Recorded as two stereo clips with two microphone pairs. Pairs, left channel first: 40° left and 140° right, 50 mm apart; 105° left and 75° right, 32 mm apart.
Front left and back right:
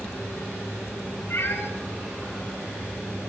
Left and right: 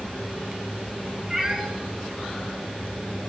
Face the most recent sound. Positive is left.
turn(degrees=-5)